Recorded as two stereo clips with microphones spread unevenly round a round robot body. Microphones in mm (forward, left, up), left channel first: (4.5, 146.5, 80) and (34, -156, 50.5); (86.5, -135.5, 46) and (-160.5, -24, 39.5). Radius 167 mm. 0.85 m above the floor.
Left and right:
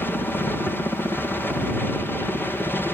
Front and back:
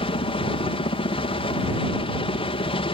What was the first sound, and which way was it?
A helicopter, 10° left.